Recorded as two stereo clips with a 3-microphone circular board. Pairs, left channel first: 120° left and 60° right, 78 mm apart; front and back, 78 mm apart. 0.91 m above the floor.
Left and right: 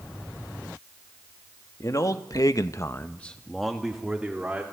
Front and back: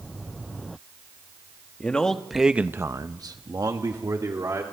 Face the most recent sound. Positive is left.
turn(degrees=-140)